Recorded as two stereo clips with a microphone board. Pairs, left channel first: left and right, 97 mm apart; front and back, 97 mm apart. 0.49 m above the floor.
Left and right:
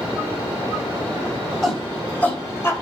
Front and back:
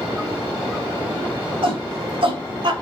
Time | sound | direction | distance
1.6 | a shout | 175° left | 3 m